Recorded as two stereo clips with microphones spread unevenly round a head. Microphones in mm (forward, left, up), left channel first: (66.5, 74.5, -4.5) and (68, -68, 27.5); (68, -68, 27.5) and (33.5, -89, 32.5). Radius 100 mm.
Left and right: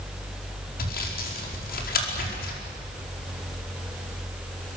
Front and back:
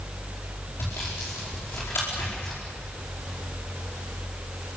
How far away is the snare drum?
No snare drum in this recording.